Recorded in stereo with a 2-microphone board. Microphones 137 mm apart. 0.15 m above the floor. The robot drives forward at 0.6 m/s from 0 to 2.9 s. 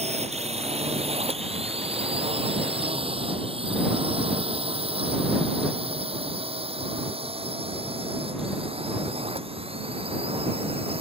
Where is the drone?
50° right (ahead or behind); by 11.0 s 45° right (ahead or behind).